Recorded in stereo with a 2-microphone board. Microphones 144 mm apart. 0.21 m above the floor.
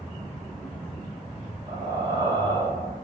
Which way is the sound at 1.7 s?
30° right (ahead or behind).